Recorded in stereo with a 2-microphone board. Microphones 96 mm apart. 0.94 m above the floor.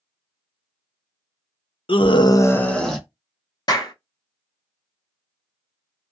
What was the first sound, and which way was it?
A scream, 65° left (ahead or behind).